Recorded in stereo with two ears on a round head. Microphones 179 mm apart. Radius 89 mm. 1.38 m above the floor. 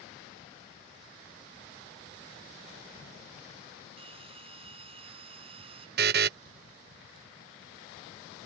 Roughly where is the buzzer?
Right.